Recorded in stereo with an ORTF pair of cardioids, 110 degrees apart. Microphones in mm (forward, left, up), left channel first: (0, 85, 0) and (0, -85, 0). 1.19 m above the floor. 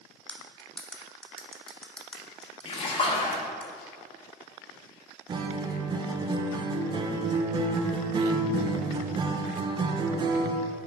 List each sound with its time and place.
0.3 s cutlery clinking: 5° left, 0.9 m
2.6 s a splash: 35° left, 1.1 m
5.3 s a guitar: 30° right, 0.6 m